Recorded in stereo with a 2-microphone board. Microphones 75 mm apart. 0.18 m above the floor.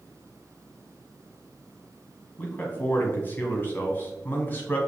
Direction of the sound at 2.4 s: 25° left (ahead or behind).